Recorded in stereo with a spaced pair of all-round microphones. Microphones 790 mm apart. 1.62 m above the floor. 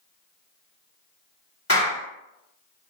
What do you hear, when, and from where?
1.7 s a clap: 20° left (ahead or behind), 1.7 m